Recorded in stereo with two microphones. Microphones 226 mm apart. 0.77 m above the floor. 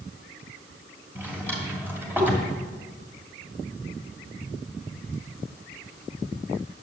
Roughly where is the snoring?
I don't hear snoring.